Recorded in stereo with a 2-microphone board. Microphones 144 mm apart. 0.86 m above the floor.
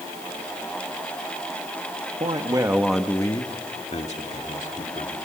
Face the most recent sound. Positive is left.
turn(degrees=60)  # may be behind; listen again after turning